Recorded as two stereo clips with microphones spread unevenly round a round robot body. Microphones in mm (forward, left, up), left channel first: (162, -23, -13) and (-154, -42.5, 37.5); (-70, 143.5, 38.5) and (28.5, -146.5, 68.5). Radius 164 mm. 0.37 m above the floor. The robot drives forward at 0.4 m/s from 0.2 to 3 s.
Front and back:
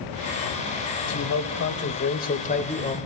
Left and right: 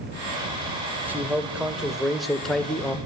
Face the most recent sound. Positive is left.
turn(degrees=40)